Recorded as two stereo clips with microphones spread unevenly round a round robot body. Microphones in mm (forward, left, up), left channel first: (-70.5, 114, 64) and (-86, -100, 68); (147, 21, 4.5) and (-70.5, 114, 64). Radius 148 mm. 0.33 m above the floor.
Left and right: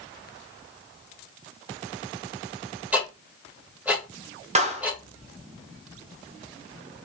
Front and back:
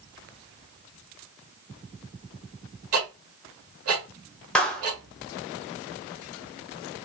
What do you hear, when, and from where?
2.9 s ticking: 175° right, 2 m
4.5 s a clap: 80° right, 1.0 m